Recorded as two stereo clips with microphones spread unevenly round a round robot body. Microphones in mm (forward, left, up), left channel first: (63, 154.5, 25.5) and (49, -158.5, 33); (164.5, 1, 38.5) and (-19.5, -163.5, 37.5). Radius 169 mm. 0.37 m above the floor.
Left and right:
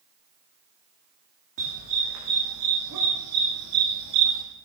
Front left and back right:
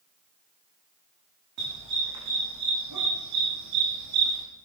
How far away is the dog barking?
About 6 m.